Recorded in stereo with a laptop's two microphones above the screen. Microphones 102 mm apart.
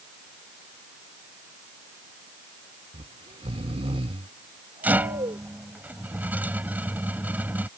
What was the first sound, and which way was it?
Snoring, 75° right (ahead or behind).